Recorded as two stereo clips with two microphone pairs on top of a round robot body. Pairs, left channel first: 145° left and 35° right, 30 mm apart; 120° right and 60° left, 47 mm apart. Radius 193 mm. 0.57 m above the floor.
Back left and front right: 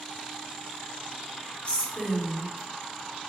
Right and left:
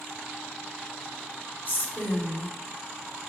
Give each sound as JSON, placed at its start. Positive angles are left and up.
{"t": 1.6, "sound": "a woman speaking", "azimuth_deg": -170, "distance_m": 3.0}